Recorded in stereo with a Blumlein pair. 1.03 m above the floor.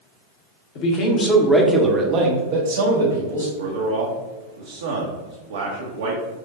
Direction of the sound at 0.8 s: 40° left.